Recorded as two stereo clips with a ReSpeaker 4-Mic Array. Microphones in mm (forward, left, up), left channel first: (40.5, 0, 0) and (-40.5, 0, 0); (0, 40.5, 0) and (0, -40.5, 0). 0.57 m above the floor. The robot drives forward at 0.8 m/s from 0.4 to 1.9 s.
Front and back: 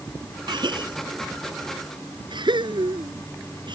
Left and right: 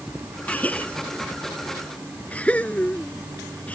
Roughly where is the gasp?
Behind.